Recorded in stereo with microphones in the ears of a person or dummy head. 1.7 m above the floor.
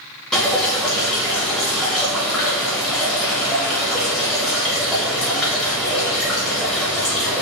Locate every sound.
0.3 s dripping: 5° left (ahead or behind), 0.7 m